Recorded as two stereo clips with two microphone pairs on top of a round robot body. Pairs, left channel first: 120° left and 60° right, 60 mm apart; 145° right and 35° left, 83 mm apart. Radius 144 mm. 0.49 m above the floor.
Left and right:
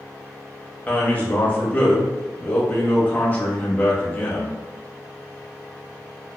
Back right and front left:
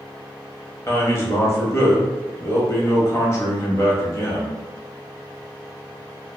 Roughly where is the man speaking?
Behind.